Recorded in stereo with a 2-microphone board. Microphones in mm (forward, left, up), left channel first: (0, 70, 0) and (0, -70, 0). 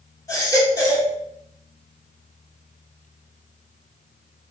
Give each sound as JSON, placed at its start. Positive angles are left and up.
{"t": 0.3, "sound": "a baby crying", "side_deg": 25, "distance_m": 2.0}